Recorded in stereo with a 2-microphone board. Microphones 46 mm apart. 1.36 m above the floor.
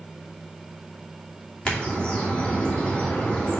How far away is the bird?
About 2.5 m.